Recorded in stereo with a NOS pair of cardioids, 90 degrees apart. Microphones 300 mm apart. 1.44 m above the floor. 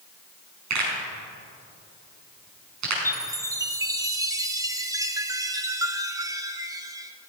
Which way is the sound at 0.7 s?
65° right.